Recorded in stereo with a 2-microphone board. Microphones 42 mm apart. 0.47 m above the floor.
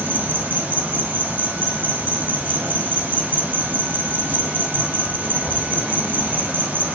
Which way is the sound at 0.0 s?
45° right (ahead or behind).